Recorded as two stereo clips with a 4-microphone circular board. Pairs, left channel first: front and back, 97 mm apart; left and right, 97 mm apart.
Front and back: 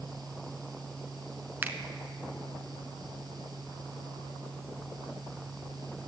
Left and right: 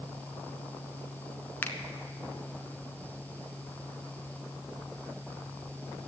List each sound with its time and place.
1.6 s a finger snap: 135° left, 0.9 m